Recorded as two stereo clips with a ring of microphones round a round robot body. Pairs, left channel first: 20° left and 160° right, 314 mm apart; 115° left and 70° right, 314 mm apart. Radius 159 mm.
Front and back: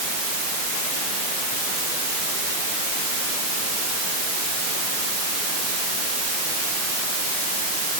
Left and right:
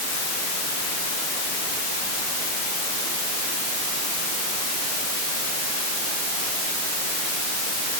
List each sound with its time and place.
Only background noise.